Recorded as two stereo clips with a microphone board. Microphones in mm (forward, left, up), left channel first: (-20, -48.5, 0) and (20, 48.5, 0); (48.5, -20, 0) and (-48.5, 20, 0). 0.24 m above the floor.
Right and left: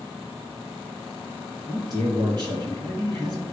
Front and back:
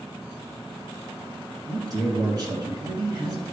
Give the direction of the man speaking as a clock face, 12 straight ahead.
8 o'clock.